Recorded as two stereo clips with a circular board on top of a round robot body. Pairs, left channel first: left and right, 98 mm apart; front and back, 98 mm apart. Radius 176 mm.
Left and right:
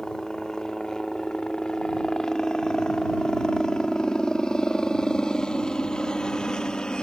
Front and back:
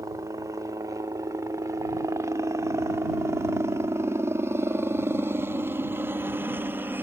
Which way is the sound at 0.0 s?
170° left.